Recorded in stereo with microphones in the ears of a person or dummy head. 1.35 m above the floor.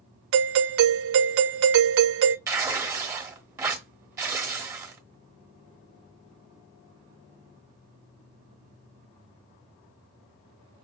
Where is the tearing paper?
15° right (ahead or behind), 0.9 m.